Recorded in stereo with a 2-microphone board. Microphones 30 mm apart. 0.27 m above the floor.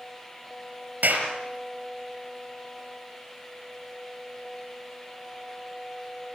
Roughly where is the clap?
Right.